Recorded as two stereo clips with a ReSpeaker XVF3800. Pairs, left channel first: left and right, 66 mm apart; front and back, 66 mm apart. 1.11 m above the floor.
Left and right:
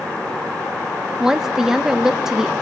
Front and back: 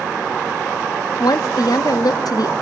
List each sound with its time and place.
1.2 s a woman speaking: 10° right, 1.1 m